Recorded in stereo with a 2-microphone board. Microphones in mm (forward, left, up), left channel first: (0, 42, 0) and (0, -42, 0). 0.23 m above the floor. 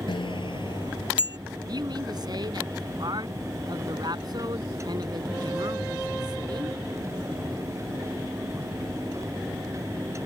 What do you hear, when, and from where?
0.1 s a bicycle bell: 75° left (ahead or behind); by 1.4 s 65° left (ahead or behind)
1.7 s a man speaking: 55° right (ahead or behind)